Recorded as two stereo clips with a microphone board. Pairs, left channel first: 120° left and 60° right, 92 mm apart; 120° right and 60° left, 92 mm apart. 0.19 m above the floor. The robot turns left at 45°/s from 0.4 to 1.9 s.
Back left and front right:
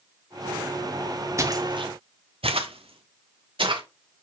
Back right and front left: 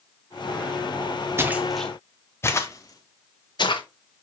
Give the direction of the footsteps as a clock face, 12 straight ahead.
12 o'clock.